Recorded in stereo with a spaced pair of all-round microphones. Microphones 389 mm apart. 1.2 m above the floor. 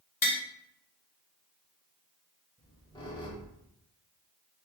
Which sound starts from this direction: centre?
A squeak, at 2.6 s.